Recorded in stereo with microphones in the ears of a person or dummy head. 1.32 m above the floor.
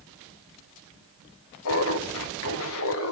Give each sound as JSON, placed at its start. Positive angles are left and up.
{"t": 1.6, "sound": "laughter", "side_deg": 70, "distance_m": 1.6}